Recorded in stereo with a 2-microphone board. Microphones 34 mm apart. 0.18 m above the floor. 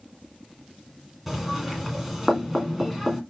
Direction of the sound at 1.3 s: 5° right (ahead or behind).